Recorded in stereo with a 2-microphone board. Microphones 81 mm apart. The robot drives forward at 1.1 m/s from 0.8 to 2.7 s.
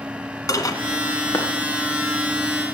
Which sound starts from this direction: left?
Dishes clattering, at 0.5 s.